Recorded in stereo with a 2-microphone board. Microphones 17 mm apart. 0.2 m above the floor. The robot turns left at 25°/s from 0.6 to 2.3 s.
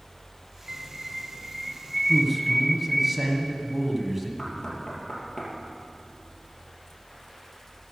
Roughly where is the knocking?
Left.